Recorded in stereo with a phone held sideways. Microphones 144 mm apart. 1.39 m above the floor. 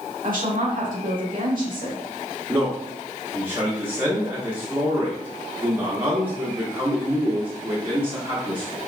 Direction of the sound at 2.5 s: 15° right (ahead or behind).